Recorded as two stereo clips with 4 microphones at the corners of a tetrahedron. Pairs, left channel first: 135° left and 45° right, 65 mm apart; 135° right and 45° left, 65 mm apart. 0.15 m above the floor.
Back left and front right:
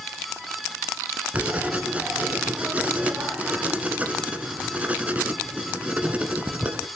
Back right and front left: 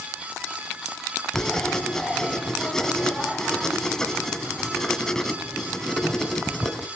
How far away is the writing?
About 1.5 m.